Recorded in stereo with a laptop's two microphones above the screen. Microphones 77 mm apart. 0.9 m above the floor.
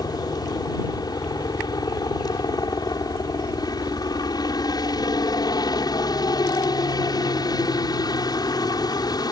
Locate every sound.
0.0 s a helicopter: 60° left (ahead or behind)